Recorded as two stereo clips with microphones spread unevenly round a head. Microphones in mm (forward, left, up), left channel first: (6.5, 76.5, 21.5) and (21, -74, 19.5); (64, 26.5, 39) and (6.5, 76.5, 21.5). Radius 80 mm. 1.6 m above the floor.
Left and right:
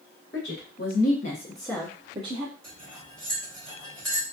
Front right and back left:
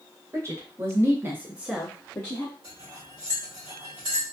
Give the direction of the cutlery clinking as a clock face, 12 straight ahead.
6 o'clock.